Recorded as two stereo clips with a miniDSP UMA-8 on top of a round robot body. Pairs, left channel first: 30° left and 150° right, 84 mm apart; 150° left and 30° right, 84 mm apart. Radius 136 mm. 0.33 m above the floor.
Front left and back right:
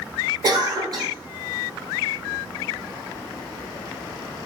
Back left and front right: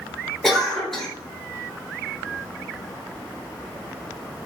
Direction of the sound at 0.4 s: 125° right.